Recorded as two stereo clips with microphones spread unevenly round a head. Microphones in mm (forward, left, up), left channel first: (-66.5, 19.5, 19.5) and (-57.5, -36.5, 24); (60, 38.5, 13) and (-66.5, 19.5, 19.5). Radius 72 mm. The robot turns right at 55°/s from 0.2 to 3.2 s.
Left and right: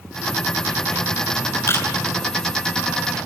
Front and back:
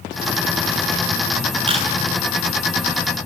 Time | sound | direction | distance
1.7 | a camera shutter | 140° left | 7 m